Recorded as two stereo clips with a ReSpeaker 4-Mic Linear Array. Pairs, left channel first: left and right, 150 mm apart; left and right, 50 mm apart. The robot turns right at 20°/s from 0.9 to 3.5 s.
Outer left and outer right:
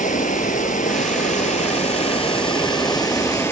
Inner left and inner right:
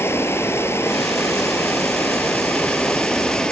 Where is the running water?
110° left, 1.1 m; by 3.5 s 160° left, 1.1 m.